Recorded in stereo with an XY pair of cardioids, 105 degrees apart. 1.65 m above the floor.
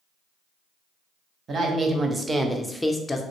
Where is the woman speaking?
45° right, 0.9 m; by 3.2 s 30° left, 0.5 m.